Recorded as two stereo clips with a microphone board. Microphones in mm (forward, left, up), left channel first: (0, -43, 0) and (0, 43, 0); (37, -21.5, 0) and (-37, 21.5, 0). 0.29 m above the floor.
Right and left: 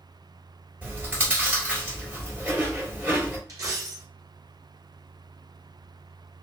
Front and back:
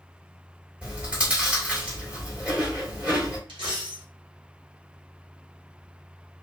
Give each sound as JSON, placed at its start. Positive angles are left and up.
{"t": 0.8, "sound": "chewing", "azimuth_deg": 105, "distance_m": 1.6}
{"t": 3.5, "sound": "a dropped coin", "azimuth_deg": 135, "distance_m": 1.2}